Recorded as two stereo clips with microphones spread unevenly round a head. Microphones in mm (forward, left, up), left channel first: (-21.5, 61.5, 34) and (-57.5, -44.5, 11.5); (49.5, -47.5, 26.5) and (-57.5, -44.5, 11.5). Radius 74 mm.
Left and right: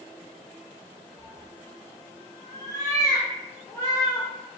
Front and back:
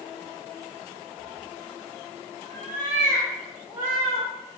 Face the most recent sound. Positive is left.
turn(degrees=90)